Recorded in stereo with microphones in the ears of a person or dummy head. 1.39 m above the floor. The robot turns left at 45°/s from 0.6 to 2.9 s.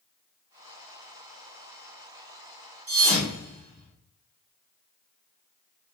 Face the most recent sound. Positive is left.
turn(degrees=-30)  # may be behind; listen again after turning